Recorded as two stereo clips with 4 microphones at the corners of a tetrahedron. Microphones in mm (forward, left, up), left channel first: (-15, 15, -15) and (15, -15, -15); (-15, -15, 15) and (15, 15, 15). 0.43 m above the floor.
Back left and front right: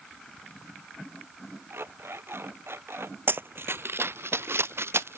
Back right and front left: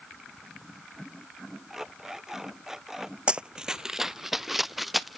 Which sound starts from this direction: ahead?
Running footsteps, at 3.3 s.